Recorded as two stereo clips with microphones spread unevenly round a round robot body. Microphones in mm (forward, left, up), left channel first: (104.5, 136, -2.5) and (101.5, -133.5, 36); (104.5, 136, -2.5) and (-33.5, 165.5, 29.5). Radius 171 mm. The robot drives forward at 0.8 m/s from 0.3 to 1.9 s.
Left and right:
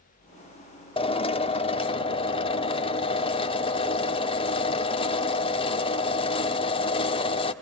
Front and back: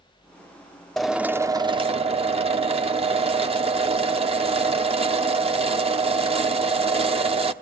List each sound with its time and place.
1.0 s a drill: 50° left, 1.1 m; by 7.5 s 130° left, 1.1 m